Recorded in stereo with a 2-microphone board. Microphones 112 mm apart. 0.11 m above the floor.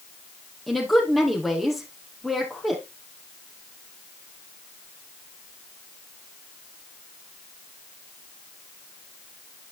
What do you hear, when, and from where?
0.7 s a woman speaking: centre (ahead or behind), 3.5 m